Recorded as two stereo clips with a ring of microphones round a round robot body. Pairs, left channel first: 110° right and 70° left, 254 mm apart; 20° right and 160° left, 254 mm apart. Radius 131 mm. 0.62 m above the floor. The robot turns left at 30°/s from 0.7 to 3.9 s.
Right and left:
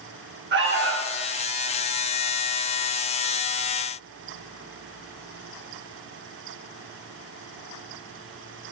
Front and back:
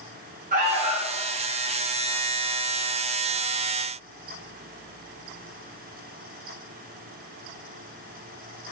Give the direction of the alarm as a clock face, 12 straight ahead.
9 o'clock.